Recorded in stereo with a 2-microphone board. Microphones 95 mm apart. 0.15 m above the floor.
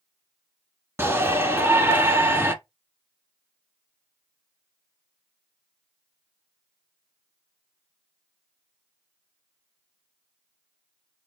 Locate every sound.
1.0 s a shout: 25° right (ahead or behind), 1.4 m